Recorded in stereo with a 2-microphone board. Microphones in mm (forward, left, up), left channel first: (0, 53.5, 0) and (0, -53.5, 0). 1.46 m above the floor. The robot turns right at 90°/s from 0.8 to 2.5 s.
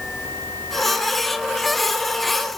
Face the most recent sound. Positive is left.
No sound to turn to.